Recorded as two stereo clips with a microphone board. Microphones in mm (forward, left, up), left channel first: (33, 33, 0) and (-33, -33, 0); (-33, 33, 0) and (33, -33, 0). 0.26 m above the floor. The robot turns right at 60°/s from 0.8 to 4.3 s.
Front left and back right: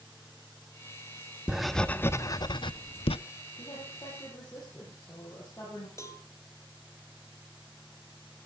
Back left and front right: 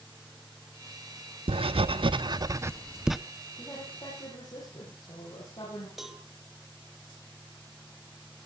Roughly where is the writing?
Ahead right.